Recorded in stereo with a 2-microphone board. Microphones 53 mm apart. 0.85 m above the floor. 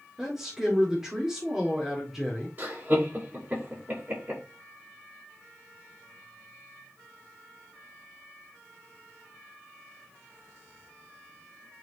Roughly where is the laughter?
Right.